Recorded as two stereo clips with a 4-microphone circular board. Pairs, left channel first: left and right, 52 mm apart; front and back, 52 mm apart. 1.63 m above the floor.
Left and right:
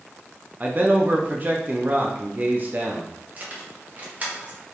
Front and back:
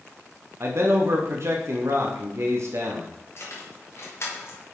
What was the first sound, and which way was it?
A man speaking, 145° right.